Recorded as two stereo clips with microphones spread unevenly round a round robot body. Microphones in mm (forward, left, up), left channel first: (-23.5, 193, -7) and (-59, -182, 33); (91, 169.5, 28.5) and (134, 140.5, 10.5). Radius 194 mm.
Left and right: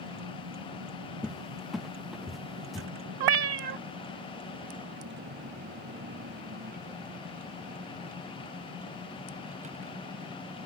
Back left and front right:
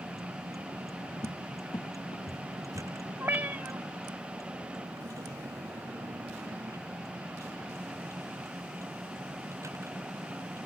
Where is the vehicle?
45° right; by 10.7 s 20° right.